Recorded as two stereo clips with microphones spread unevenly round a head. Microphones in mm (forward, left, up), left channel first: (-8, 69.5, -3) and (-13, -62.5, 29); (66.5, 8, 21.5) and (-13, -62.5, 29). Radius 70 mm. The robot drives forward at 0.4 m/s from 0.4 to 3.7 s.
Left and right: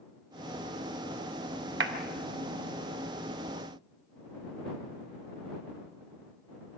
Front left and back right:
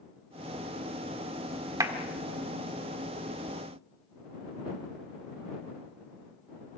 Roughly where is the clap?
Right.